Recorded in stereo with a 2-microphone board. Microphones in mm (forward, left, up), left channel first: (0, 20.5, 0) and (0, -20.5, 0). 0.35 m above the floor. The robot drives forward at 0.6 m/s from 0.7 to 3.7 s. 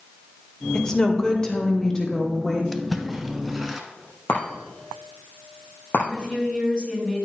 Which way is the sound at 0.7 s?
15° left (ahead or behind).